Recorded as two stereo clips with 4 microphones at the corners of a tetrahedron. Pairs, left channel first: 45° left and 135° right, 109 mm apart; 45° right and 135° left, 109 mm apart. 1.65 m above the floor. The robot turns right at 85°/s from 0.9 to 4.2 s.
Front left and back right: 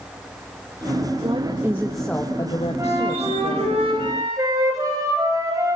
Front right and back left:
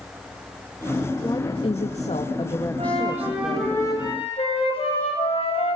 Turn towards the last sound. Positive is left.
turn(degrees=-75)